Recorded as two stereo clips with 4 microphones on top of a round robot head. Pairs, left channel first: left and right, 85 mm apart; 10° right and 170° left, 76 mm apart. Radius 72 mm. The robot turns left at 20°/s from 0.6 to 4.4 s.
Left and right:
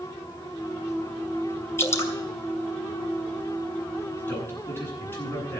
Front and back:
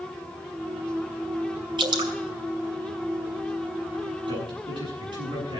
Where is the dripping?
150° left, 2.5 m; by 2.1 s 145° left, 2.5 m.